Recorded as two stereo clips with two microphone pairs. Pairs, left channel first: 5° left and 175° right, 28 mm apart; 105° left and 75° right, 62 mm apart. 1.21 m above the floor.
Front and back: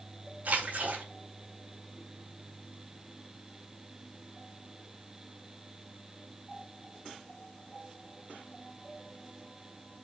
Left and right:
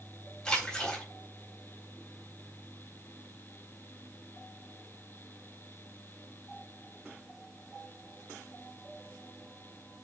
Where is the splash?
Straight behind, 4 m.